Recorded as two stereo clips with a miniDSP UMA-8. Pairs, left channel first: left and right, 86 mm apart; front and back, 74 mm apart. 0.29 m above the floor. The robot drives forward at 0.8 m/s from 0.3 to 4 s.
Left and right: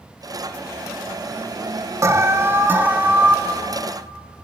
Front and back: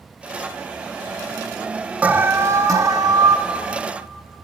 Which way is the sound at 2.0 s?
120° right.